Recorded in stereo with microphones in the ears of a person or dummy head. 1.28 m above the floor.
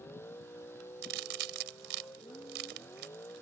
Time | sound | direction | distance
0.0 | a vehicle | 15° left (ahead or behind) | ?
1.0 | a crack | 70° right (ahead or behind) | ?